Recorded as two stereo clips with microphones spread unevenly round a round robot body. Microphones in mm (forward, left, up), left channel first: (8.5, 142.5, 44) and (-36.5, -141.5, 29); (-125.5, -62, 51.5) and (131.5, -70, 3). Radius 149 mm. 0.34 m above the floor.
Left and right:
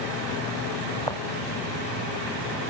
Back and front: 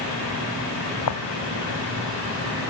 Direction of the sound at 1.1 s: 160° left.